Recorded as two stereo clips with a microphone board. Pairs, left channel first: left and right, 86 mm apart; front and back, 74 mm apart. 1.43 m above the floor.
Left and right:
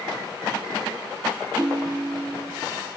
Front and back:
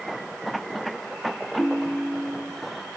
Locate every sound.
1.6 s a ringtone: 15° right, 0.9 m